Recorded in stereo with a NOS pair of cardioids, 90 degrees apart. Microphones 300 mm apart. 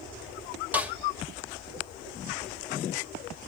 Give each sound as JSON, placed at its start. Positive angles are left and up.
{"t": 0.7, "sound": "a snare drum", "azimuth_deg": -5, "distance_m": 2.5}